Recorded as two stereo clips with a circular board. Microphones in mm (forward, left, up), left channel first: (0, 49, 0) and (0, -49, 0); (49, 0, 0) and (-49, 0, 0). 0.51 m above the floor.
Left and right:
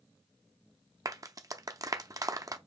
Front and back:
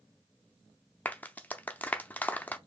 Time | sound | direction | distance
1.1 | a clap | 65° right | 0.5 m